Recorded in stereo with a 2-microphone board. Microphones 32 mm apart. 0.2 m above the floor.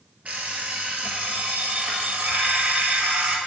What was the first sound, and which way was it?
An alarm clock, 50° right (ahead or behind).